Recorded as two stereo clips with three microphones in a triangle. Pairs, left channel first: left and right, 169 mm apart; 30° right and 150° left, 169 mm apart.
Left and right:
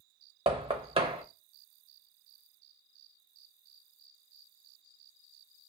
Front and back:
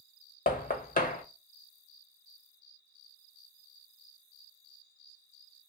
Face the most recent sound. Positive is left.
turn(degrees=-40)